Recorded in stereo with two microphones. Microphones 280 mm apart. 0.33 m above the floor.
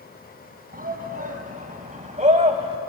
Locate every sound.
0.7 s a shout: 30° right (ahead or behind), 3 m; by 2.8 s 20° right (ahead or behind), 1.8 m